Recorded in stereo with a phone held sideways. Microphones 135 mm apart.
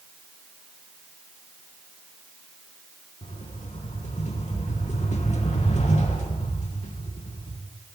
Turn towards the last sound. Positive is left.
turn(degrees=55)  # may be behind; listen again after turning